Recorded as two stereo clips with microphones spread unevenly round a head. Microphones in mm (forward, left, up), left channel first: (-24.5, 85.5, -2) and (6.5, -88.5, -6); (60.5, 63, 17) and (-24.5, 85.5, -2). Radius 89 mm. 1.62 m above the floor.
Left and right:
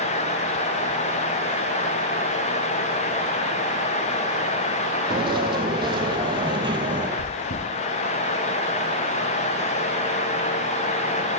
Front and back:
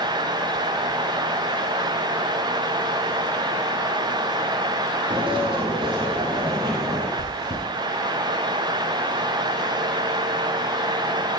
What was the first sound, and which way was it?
Footsteps, 140° right.